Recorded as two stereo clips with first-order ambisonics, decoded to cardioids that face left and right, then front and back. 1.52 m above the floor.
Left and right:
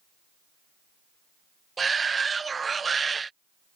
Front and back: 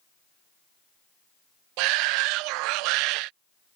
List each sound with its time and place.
1.8 s a shout: 165° right